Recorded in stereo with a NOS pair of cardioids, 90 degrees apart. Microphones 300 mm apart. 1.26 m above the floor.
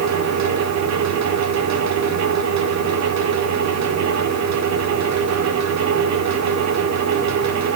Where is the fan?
65° right, 1.9 m.